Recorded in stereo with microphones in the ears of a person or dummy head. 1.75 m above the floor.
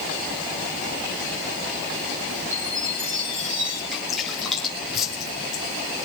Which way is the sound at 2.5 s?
40° right (ahead or behind).